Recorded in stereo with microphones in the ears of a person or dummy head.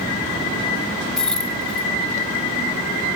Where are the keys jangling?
5° left (ahead or behind).